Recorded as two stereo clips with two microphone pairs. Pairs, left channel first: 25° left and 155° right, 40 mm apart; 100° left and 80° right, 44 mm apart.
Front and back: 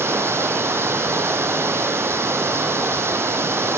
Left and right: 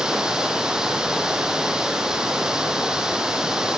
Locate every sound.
0.0 s running water: 155° right, 2.5 m